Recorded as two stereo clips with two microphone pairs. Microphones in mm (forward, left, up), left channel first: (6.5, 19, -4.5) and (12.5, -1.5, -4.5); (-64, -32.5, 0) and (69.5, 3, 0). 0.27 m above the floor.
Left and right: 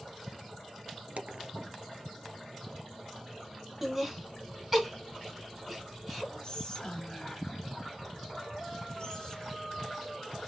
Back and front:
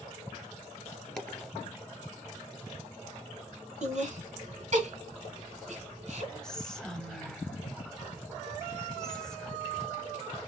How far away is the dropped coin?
About 1.5 m.